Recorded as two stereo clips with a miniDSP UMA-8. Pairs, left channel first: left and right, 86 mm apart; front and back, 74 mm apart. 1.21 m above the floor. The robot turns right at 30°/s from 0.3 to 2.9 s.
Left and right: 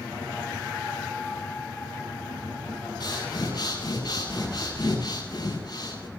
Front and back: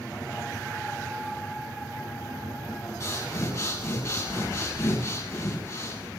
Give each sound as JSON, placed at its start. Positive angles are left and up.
{"t": 3.0, "sound": "breathing", "azimuth_deg": 45, "distance_m": 8.0}